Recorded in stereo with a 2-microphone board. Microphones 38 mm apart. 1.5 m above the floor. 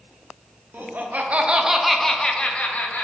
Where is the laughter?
60° right (ahead or behind), 0.7 m; by 3.0 s 45° left (ahead or behind), 0.8 m.